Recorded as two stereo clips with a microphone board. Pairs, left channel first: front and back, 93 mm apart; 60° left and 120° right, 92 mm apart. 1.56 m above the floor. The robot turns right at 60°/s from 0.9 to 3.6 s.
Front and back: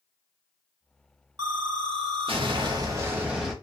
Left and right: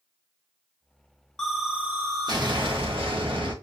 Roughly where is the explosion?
Behind left.